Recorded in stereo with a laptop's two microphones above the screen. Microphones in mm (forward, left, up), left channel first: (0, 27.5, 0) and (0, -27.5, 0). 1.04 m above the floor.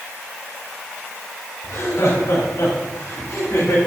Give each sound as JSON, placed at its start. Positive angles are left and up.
{"t": 1.6, "sound": "laughter", "side_deg": 65, "distance_m": 4.5}